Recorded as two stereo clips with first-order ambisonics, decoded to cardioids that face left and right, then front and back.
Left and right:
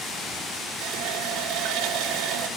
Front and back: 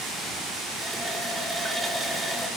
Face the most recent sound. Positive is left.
turn(degrees=-100)